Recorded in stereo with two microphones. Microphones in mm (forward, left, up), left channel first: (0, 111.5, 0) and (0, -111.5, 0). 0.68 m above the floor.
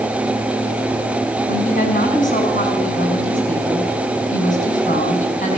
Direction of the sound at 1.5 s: 35° left (ahead or behind).